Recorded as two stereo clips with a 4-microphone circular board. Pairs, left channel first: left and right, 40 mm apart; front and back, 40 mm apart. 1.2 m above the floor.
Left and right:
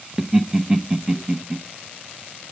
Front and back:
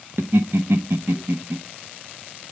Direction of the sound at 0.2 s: 165° right.